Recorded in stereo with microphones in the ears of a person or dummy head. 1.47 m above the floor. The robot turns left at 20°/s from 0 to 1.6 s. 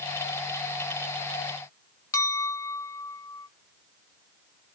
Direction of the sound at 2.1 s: 15° left (ahead or behind).